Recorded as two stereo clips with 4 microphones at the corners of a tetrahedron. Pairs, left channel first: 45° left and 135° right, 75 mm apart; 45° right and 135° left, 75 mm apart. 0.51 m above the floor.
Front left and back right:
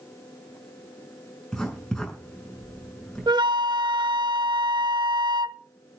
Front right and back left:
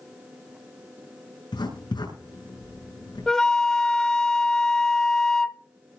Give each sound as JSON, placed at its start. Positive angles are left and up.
{"t": 1.5, "sound": "writing", "azimuth_deg": -40, "distance_m": 7.5}
{"t": 3.3, "sound": "a flute", "azimuth_deg": -125, "distance_m": 0.9}